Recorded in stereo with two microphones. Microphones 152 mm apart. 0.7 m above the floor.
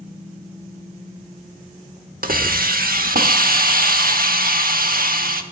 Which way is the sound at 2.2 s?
75° right (ahead or behind).